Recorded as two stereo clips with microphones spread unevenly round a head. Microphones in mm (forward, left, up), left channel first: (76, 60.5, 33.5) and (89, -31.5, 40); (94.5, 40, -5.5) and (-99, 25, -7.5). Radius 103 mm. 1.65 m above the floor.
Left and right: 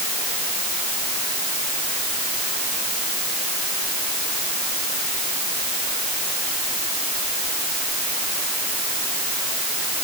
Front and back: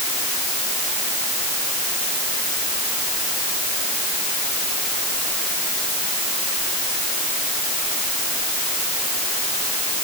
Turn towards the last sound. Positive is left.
No sound to turn to.